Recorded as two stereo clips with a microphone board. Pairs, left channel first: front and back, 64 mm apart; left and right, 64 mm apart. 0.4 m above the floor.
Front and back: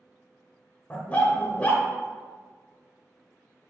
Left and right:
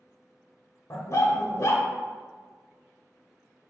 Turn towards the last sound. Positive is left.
turn(degrees=65)